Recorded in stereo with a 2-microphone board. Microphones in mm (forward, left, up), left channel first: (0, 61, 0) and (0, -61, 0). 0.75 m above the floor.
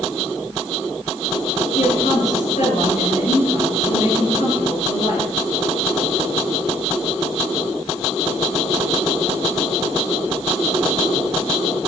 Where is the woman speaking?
85° left, 9 m.